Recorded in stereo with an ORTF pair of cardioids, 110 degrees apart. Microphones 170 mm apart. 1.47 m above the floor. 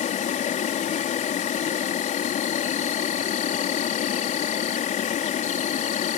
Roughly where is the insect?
Ahead left.